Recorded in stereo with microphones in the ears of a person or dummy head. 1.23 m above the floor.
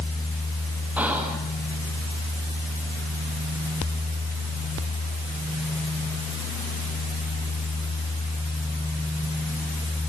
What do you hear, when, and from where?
1.0 s whispering: centre (ahead or behind), 1.8 m